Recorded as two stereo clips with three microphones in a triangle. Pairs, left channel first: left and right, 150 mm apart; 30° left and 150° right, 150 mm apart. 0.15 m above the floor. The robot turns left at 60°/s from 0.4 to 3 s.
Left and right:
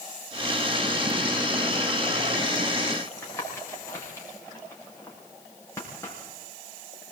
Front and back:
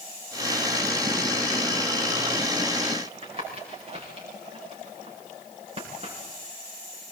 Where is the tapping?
160° left, 7.5 m.